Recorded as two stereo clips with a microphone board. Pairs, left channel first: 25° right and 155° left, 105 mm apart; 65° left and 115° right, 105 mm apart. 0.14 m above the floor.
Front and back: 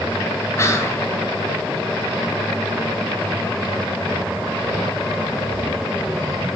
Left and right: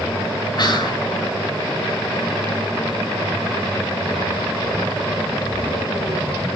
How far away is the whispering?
About 2.5 m.